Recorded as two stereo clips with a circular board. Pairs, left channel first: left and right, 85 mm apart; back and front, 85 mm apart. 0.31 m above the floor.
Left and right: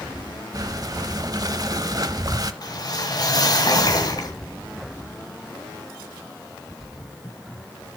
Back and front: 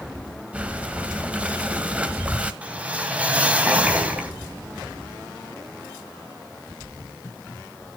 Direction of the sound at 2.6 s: 70° left.